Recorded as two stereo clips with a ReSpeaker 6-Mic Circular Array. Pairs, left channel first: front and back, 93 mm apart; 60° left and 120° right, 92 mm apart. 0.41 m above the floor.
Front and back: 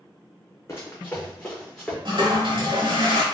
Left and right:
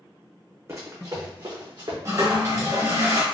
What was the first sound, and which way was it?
Running footsteps, 60° right.